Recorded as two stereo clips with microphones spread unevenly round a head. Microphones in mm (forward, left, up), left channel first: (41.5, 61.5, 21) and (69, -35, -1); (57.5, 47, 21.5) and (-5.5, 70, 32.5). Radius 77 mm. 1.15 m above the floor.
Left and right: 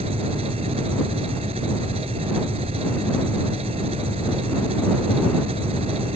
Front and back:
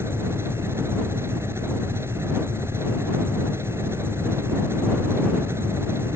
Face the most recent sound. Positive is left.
turn(degrees=-130)